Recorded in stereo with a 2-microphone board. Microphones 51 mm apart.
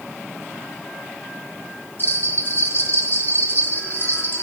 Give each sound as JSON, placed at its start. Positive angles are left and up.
{"t": 2.0, "sound": "a bell", "side_deg": 40, "distance_m": 1.6}